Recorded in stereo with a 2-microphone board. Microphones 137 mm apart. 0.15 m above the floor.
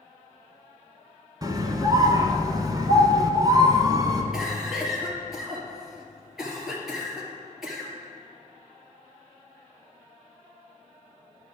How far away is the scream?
About 1.2 m.